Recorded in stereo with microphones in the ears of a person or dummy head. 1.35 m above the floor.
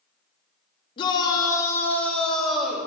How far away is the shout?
About 3 m.